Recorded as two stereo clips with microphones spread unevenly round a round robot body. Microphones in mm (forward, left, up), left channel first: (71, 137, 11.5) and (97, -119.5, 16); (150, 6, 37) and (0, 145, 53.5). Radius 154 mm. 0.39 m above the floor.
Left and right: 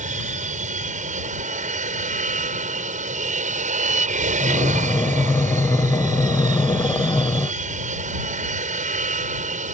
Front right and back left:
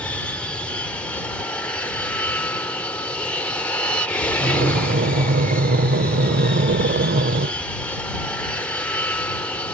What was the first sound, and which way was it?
An aircraft, 115° right.